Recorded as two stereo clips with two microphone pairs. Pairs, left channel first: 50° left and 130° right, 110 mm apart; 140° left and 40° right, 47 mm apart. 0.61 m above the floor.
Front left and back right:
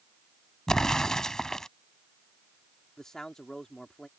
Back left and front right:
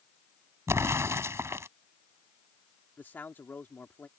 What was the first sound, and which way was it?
An explosion, 35° right.